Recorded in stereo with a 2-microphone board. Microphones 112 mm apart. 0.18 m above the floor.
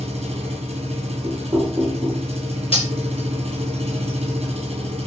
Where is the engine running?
70° right (ahead or behind), 1.5 m.